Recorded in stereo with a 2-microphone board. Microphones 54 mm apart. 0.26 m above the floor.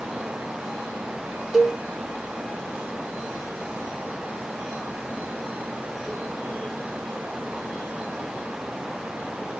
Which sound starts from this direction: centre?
A cowbell, at 1.5 s.